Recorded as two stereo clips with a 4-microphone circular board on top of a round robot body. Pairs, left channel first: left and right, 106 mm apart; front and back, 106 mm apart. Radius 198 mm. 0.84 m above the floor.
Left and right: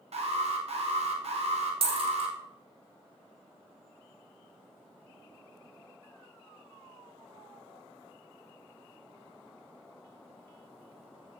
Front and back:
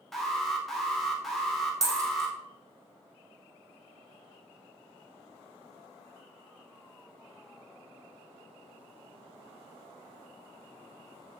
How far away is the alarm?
About 2.5 m.